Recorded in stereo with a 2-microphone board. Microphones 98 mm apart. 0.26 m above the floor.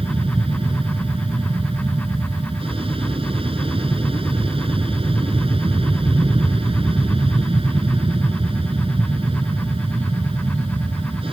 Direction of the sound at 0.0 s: 65° right (ahead or behind).